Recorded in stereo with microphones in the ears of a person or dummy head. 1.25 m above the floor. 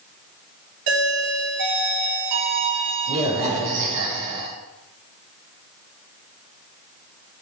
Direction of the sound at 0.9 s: 65° right (ahead or behind).